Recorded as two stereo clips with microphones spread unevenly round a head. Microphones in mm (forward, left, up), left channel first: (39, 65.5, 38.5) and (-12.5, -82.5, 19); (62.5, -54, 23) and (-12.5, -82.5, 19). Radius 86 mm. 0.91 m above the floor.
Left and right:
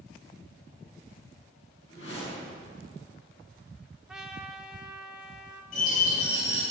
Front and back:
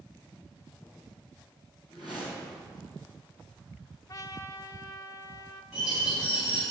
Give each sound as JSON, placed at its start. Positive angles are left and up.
{"t": 1.9, "sound": "a whoosh", "azimuth_deg": 70, "distance_m": 5.5}
{"t": 4.1, "sound": "a trumpet", "azimuth_deg": -25, "distance_m": 1.0}
{"t": 5.7, "sound": "a bird", "azimuth_deg": 115, "distance_m": 5.0}